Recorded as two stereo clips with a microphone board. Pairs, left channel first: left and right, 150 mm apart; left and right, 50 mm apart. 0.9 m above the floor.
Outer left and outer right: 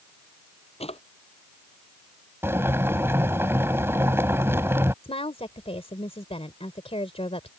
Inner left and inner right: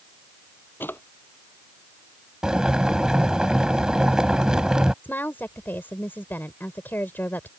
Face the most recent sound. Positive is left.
turn(degrees=40)  # may be behind; listen again after turning